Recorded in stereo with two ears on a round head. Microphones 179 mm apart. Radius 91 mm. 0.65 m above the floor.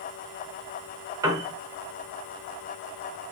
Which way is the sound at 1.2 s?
15° right (ahead or behind).